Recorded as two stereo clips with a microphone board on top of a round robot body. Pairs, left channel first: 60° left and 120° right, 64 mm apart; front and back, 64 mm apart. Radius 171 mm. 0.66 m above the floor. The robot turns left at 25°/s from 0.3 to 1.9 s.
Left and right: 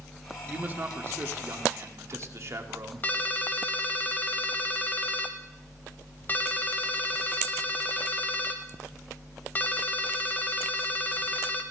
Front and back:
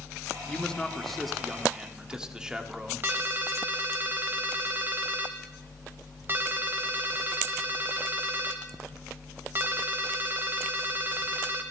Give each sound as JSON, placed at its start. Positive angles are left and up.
{"t": 0.5, "sound": "a man speaking", "azimuth_deg": -70, "distance_m": 1.4}
{"t": 3.0, "sound": "a ringtone", "azimuth_deg": 125, "distance_m": 0.5}